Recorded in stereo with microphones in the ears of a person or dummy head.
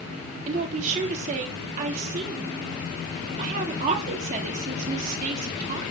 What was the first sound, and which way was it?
A woman speaking, 45° right (ahead or behind).